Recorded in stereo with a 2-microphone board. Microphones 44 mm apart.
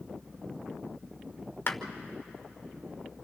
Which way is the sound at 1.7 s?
55° left (ahead or behind).